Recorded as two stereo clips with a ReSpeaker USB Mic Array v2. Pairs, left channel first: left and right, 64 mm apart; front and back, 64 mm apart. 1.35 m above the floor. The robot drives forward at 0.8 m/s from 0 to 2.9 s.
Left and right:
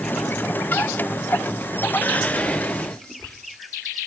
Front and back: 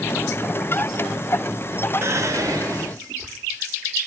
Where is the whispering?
145° left, 0.7 m; by 3.3 s 165° left, 1.3 m.